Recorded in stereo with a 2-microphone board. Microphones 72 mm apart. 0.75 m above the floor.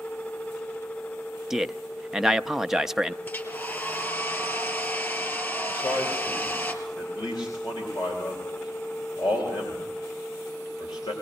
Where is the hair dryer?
30° left (ahead or behind), 2.5 m.